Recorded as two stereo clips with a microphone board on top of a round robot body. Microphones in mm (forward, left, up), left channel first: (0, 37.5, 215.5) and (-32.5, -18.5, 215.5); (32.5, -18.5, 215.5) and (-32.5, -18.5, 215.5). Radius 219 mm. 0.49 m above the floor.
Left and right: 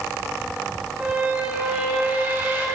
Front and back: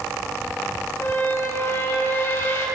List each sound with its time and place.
1.0 s a squeak: 55° right, 5 m